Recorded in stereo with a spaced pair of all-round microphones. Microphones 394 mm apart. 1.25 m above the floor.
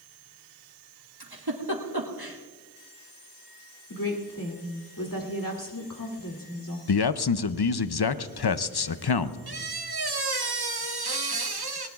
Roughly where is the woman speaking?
Left.